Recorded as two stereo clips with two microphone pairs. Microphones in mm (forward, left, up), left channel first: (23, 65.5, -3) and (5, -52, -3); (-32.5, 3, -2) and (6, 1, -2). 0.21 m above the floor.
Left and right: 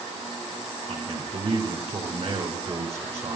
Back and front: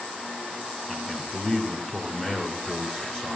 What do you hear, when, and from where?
0.9 s a man speaking: 110° right, 3 m